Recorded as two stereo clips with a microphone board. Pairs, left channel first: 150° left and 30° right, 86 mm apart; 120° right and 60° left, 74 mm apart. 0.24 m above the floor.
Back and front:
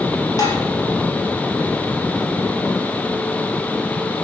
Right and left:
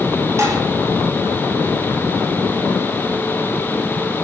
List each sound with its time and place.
0.4 s dishes clattering: 110° left, 4.5 m